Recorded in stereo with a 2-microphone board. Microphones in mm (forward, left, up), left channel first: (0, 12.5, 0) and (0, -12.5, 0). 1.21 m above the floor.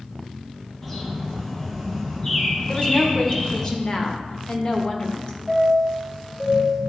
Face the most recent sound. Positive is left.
turn(degrees=15)  # may be behind; listen again after turning